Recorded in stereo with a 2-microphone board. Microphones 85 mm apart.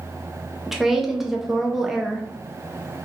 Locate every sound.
0.7 s a woman speaking: 5° right (ahead or behind), 0.5 m